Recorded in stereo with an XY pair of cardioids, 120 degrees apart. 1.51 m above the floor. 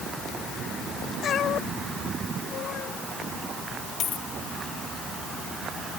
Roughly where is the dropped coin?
Ahead left.